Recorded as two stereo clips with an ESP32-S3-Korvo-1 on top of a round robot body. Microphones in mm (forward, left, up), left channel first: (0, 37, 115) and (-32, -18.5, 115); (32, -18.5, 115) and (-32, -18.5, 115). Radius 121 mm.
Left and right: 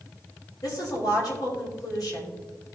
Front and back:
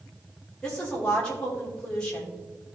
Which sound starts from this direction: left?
A woman speaking, at 0.6 s.